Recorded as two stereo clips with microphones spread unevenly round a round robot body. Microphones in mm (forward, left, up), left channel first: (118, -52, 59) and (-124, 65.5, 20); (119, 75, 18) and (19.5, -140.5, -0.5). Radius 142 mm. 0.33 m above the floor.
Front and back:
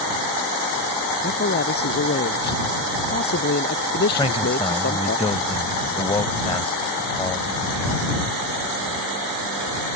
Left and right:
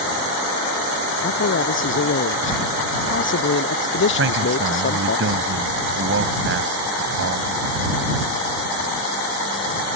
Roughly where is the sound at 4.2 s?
Right.